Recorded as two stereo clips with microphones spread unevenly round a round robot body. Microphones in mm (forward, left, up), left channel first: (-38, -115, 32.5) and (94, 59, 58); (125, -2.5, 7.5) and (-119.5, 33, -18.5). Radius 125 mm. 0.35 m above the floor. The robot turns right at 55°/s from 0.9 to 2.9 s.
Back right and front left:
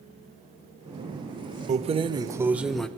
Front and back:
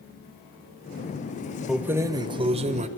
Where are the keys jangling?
95° left, 0.6 m; by 2.9 s 160° left, 0.6 m.